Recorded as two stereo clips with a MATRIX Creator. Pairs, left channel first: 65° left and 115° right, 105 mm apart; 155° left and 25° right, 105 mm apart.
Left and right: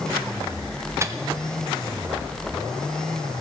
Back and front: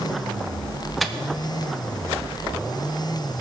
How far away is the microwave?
About 0.6 m.